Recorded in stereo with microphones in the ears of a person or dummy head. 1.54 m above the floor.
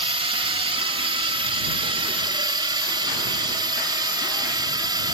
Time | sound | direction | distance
0.0 | a drone | 35° right (ahead or behind) | ?